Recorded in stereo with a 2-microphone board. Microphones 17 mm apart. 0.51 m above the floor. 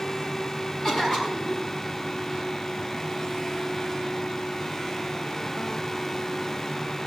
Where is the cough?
35° left (ahead or behind), 5 m.